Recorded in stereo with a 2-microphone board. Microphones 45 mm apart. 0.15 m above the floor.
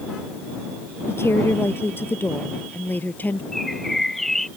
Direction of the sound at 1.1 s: 70° left (ahead or behind).